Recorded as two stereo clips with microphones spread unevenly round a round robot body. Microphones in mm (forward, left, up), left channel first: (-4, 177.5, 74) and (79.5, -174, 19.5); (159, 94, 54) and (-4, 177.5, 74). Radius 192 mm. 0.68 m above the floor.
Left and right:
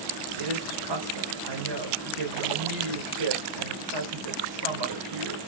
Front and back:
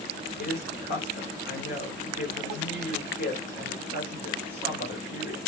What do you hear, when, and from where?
0.4 s a woman speaking: 70° right, 2.5 m